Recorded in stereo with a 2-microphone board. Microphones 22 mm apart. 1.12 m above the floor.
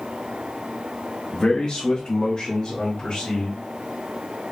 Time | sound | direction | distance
1.3 | a man speaking | 45° left (ahead or behind) | 0.8 m